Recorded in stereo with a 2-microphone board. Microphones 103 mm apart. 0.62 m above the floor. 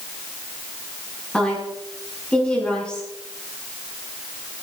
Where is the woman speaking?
10° left (ahead or behind), 7.5 m.